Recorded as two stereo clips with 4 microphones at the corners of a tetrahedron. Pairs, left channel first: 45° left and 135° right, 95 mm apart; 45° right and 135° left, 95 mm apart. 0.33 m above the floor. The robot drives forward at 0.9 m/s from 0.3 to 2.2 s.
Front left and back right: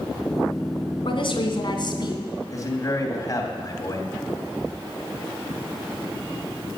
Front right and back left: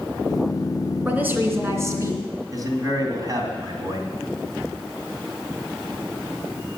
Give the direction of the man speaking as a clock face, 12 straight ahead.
9 o'clock.